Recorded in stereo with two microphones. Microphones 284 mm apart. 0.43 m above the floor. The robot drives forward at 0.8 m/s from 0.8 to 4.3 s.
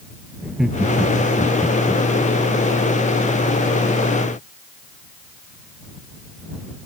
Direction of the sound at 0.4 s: Centre (ahead or behind).